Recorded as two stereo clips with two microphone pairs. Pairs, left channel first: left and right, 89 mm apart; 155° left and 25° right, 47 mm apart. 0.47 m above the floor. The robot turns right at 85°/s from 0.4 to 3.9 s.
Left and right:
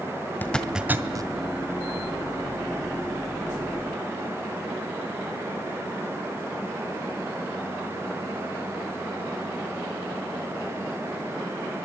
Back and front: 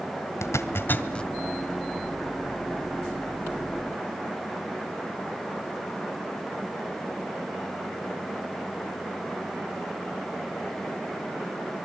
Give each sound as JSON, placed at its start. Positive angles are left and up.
{"t": 0.4, "sound": "a zipper", "azimuth_deg": 155, "distance_m": 1.9}